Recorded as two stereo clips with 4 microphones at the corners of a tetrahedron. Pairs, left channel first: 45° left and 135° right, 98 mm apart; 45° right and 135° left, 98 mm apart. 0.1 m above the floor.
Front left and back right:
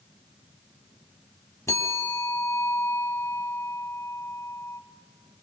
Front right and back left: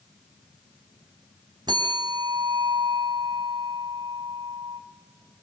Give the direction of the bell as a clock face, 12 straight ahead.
9 o'clock.